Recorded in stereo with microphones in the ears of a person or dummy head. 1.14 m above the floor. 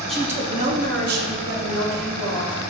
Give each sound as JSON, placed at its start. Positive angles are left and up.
{"t": 0.1, "sound": "a woman speaking", "side_deg": 0, "distance_m": 0.5}